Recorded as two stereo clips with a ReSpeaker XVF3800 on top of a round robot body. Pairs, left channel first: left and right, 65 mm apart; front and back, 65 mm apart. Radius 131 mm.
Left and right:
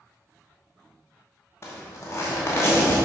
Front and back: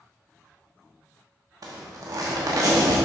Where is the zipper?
145° left, 1.0 m.